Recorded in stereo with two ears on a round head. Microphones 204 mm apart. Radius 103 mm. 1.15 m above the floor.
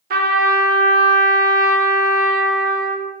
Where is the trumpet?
40° right (ahead or behind), 0.8 m.